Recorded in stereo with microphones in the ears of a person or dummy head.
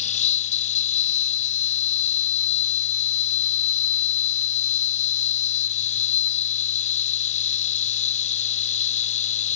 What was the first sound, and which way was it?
An insect, 35° left (ahead or behind).